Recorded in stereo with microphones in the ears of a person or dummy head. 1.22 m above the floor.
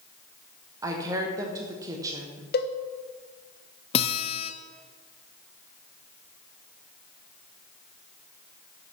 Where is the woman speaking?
20° right (ahead or behind), 1.2 m.